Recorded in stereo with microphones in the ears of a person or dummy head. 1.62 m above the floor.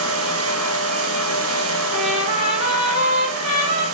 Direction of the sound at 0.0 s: 75° right (ahead or behind).